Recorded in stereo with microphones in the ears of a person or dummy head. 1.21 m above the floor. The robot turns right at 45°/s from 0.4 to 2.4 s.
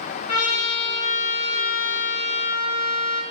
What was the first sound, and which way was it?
A trumpet, 40° left.